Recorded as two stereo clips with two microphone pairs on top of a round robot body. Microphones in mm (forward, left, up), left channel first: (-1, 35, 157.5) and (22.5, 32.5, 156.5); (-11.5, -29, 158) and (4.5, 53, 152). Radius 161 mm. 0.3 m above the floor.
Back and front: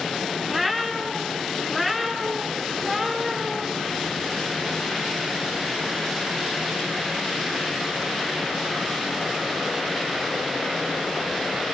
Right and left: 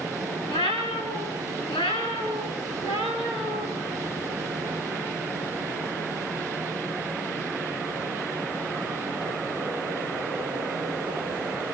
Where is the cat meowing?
105° right, 3.5 m; by 3.7 s 95° right, 5.5 m.